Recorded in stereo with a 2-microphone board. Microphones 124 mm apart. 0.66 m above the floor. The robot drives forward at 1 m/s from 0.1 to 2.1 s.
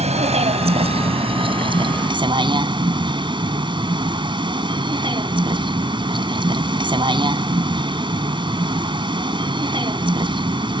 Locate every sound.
0.0 s a vehicle: 65° right (ahead or behind); by 10.8 s 40° right (ahead or behind)